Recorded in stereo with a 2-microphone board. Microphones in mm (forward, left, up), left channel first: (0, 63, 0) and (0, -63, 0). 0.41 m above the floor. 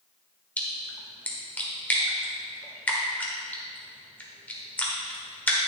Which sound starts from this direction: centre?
A splash, at 0.6 s.